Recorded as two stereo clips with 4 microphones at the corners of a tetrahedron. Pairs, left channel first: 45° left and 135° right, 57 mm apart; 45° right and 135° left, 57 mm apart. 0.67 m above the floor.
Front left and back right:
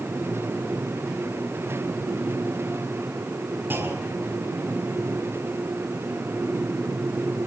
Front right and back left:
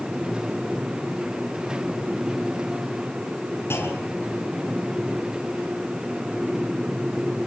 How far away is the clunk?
About 6.5 m.